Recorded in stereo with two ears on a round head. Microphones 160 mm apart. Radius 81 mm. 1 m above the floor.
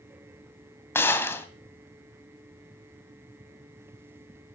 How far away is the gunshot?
About 1.9 m.